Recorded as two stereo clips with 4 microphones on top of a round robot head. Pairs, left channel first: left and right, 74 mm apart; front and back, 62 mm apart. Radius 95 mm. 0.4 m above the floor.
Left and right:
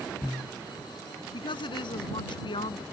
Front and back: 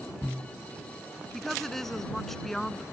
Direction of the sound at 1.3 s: 85° left.